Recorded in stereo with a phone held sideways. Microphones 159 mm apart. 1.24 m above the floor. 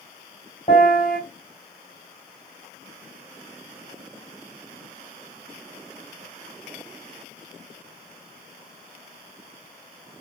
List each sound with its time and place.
0.7 s a piano: 50° left (ahead or behind), 2.0 m